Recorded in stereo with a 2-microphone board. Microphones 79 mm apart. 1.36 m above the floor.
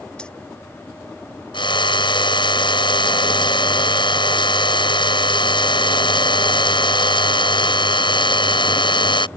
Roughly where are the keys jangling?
Centre.